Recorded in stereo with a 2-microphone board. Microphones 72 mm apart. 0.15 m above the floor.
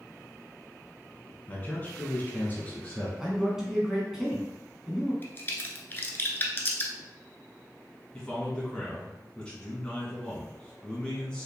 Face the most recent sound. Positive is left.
turn(degrees=15)  # may be behind; listen again after turning